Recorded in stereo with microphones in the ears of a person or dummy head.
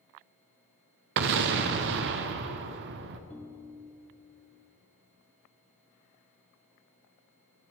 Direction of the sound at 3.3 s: 10° left (ahead or behind).